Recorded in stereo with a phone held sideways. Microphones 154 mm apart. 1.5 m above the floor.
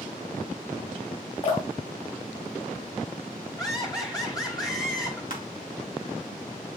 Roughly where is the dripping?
Left.